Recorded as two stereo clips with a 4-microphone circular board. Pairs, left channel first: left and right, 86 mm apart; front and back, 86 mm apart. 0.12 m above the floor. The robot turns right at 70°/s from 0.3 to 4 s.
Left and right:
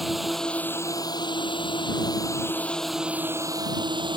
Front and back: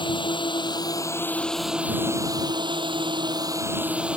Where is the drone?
Straight ahead; by 4.2 s 105° right.